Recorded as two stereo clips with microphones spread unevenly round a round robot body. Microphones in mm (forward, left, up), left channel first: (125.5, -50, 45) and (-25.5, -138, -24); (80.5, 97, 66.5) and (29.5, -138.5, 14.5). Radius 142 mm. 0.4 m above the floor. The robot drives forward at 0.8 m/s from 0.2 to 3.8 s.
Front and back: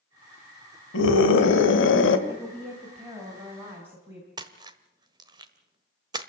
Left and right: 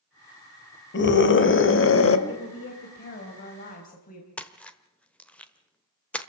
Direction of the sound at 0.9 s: 35° left.